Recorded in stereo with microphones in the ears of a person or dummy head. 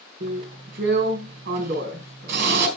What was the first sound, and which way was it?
A drill, 60° right (ahead or behind).